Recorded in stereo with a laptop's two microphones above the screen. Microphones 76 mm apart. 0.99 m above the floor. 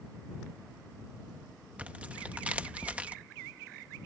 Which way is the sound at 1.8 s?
15° right (ahead or behind).